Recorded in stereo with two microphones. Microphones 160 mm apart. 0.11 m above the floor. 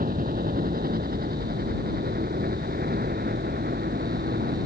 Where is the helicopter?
60° right (ahead or behind); by 4.7 s 80° right.